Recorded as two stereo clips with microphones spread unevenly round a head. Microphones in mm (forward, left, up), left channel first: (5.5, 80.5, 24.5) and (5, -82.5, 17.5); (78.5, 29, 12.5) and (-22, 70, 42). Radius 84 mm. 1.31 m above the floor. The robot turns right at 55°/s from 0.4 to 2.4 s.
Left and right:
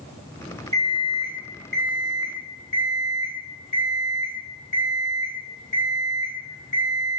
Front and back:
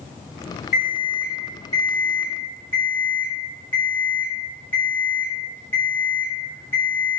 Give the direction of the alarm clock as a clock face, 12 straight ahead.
1 o'clock.